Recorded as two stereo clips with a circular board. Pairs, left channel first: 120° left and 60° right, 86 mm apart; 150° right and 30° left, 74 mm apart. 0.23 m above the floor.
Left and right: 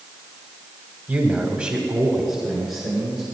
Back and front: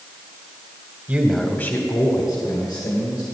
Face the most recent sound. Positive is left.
turn(degrees=-150)